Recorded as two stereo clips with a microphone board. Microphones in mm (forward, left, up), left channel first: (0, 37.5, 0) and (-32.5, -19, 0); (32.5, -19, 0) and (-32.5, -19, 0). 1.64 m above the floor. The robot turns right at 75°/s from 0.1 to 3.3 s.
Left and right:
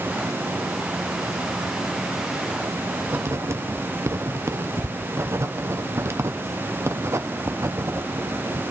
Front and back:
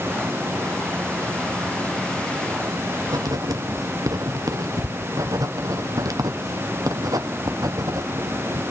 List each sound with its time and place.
3.1 s writing: straight behind, 1.0 m; by 8.6 s 165° right, 1.0 m